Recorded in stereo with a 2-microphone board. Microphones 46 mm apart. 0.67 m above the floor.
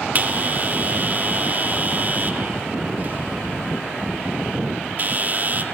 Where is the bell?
40° right (ahead or behind), 1.8 m.